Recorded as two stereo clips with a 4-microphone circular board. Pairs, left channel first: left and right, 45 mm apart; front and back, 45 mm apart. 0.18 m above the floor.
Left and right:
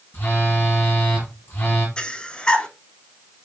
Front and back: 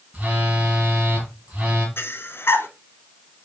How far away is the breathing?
About 0.8 m.